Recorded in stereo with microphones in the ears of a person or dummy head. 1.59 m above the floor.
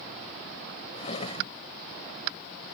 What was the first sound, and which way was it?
A drawer, 40° left (ahead or behind).